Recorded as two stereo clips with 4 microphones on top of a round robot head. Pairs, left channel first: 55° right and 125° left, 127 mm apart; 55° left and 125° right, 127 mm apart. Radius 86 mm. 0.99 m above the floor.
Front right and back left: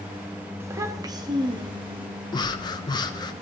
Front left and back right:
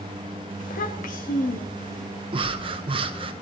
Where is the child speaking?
55° left, 1.2 m; by 2.1 s 75° left, 1.8 m.